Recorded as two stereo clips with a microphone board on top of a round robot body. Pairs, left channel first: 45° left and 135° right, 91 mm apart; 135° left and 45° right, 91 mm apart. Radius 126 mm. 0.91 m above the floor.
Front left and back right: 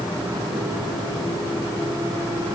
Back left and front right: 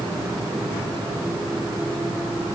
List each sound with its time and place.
Only background noise.